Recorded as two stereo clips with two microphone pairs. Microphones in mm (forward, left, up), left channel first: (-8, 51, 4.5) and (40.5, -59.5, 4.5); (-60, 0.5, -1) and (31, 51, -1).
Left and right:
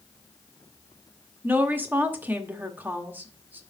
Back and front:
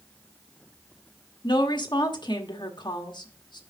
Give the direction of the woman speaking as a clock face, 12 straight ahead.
4 o'clock.